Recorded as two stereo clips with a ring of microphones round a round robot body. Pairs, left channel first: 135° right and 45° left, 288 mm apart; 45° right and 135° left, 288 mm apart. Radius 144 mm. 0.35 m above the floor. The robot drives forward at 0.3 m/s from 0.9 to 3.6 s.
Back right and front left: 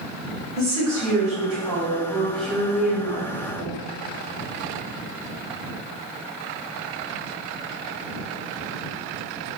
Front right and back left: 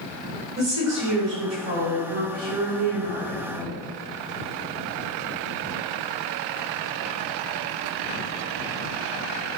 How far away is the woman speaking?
About 1.6 m.